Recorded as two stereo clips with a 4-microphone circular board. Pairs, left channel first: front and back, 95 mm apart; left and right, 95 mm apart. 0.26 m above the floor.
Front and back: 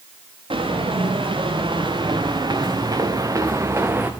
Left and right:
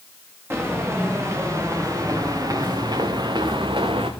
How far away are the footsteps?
About 3 m.